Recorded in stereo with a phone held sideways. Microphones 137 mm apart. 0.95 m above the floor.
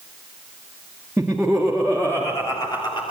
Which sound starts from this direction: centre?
Laughter, at 1.2 s.